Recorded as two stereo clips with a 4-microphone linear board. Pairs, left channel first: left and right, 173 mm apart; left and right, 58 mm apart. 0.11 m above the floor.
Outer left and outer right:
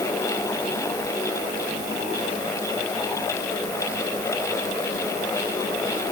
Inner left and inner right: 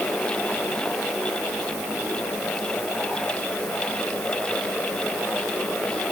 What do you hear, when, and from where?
Only background noise.